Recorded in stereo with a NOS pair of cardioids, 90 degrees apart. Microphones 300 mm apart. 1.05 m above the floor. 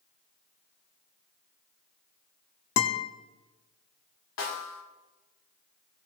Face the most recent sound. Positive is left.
turn(degrees=60)